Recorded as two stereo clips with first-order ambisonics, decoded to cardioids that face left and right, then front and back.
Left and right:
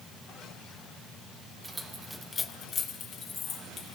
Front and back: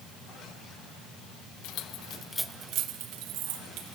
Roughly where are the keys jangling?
Ahead.